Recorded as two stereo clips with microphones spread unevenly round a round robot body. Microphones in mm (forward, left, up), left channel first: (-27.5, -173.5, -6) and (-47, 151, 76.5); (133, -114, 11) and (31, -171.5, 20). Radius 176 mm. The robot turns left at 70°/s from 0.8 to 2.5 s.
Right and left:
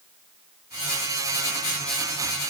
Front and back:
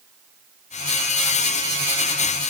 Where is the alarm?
I don't hear an alarm.